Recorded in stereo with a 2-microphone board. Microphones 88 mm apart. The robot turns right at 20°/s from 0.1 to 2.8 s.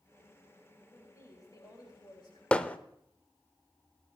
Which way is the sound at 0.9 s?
30° left (ahead or behind).